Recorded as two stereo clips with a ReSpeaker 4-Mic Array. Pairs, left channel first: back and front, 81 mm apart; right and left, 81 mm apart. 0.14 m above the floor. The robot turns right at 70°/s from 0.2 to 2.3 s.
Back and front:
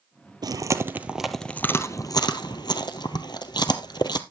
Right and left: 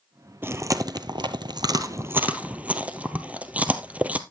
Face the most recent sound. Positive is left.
turn(degrees=160)